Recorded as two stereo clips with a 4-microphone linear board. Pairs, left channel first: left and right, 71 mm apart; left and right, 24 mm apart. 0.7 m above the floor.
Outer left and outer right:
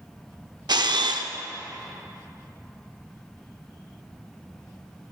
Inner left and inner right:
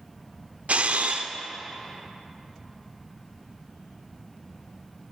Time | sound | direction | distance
0.7 | a camera shutter | 80° right | 0.6 m